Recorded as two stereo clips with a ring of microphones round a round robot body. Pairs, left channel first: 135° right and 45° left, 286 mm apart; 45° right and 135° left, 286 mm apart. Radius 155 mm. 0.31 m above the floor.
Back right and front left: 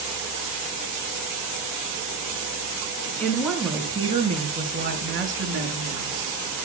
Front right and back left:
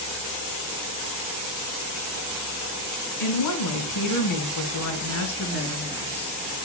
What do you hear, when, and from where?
3.2 s a woman speaking: 50° right, 3 m; by 6.4 s 15° left, 4 m